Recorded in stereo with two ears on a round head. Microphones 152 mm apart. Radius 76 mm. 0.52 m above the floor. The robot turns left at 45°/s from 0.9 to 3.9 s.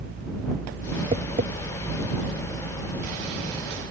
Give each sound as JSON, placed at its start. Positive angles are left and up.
{"t": 1.1, "sound": "tapping", "side_deg": -35}